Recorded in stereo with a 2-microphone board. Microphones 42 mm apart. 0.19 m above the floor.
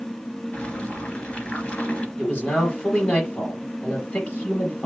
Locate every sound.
0.5 s boiling: 30° left (ahead or behind), 2 m
2.2 s a man speaking: 35° left (ahead or behind), 4.5 m